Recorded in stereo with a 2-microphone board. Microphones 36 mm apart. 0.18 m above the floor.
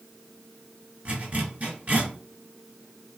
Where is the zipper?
45° right (ahead or behind), 1.6 m.